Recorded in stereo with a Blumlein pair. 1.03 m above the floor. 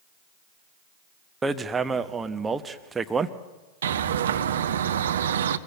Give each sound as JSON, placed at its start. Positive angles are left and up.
{"t": 1.4, "sound": "hammering", "azimuth_deg": -15, "distance_m": 1.1}
{"t": 3.8, "sound": "a bird", "azimuth_deg": -65, "distance_m": 1.0}